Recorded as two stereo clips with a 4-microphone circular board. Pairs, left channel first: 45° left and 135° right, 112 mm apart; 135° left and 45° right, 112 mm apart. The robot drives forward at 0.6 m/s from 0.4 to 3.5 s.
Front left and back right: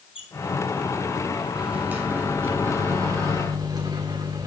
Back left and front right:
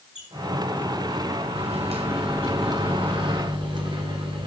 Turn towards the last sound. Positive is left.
turn(degrees=-85)